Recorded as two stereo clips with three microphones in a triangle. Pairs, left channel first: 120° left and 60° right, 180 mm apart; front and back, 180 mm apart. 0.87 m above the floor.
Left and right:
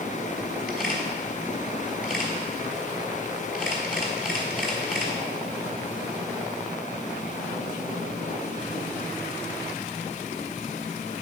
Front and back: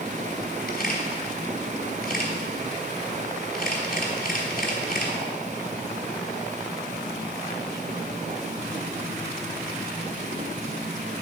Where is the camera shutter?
25° left, 3 m.